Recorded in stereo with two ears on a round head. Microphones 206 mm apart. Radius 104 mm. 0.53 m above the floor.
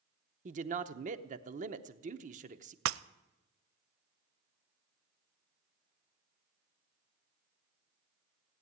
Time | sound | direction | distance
0.5 | a man speaking | 35° right (ahead or behind) | 0.8 m
2.9 | breaking glass | 65° right (ahead or behind) | 0.5 m